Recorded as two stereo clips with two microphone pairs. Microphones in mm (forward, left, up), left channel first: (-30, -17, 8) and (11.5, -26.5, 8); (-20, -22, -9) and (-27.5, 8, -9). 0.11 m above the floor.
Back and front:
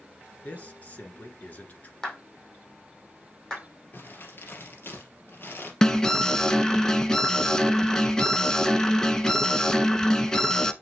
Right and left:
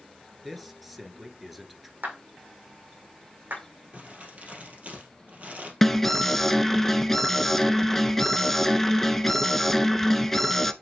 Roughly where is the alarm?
Behind right.